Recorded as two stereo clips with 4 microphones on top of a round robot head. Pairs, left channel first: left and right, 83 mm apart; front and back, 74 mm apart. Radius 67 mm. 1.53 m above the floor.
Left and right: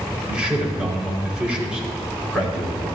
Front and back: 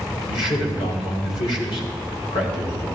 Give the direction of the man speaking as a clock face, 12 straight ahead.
12 o'clock.